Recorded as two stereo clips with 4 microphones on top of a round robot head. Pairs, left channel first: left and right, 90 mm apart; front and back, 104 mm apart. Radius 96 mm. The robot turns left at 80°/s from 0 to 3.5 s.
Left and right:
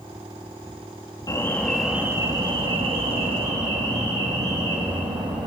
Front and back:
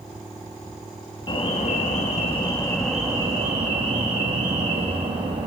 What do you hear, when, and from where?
1.3 s an alarm: 40° left, 3.5 m; by 5.5 s 135° right, 3.5 m